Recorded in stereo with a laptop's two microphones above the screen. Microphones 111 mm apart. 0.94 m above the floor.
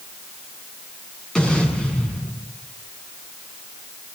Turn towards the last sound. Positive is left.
turn(degrees=5)  # may be behind; listen again after turning